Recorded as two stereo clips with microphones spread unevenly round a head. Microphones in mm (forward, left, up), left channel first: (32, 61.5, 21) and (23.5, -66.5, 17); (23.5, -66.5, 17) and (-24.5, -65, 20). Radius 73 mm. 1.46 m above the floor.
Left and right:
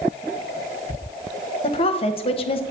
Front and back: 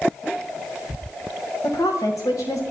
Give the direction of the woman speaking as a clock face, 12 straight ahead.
11 o'clock.